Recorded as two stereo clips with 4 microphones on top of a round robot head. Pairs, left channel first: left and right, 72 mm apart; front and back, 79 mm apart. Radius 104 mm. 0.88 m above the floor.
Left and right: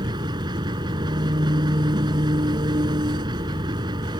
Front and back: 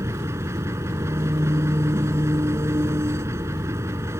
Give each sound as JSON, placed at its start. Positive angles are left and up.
{"t": 0.0, "sound": "an engine running", "azimuth_deg": -120}